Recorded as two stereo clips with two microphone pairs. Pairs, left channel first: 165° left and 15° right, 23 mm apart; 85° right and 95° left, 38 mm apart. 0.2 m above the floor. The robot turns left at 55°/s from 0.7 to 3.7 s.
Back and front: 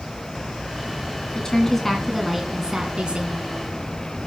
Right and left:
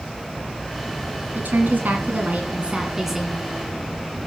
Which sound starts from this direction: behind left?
A woman speaking, at 1.4 s.